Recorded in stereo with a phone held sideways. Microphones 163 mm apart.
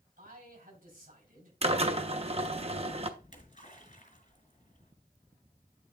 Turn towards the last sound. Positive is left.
turn(degrees=55)  # may be behind; listen again after turning